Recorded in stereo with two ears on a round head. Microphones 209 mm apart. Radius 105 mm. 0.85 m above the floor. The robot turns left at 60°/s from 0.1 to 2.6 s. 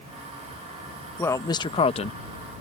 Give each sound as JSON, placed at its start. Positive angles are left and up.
{"t": 1.2, "sound": "a man speaking", "side_deg": 10}